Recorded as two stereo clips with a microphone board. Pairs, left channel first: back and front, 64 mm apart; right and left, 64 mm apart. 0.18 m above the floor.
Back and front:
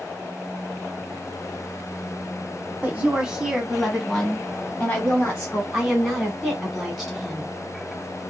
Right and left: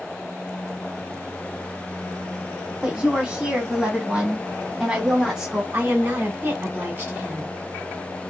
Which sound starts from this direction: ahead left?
A woman speaking, at 2.8 s.